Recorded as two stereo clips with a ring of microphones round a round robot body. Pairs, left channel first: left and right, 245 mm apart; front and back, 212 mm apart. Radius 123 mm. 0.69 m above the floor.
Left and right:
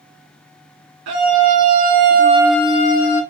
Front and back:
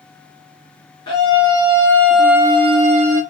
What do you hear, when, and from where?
1.1 s a scream: 70° right, 1.5 m; by 3.2 s 125° left, 0.9 m